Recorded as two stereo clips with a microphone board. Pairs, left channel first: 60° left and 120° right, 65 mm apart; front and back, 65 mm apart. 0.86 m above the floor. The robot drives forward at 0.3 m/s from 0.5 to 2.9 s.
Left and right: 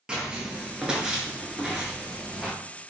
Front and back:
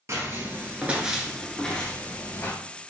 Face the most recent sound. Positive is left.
turn(degrees=-45)